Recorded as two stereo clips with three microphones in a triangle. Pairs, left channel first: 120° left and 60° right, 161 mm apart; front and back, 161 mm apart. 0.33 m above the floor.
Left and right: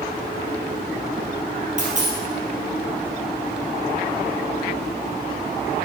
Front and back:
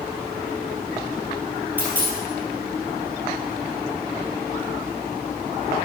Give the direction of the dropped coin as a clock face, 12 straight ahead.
3 o'clock.